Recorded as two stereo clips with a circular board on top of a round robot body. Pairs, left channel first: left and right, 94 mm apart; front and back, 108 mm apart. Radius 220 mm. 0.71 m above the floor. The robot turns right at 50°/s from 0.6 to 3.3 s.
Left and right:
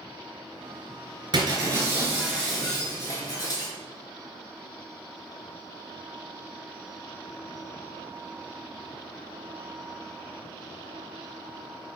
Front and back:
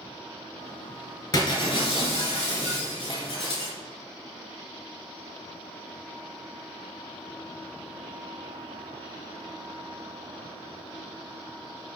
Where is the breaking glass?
60° right, 3 m; by 3.7 s 40° left, 3 m.